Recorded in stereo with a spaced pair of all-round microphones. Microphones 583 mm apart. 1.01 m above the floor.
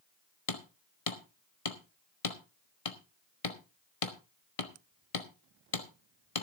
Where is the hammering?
65° left (ahead or behind), 1.4 m.